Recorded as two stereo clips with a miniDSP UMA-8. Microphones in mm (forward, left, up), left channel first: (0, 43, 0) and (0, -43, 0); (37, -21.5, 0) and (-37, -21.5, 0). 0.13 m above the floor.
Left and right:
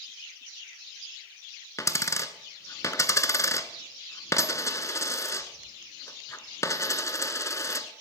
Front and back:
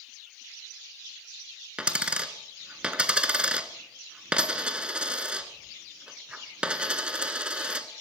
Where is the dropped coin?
115° left, 0.8 m.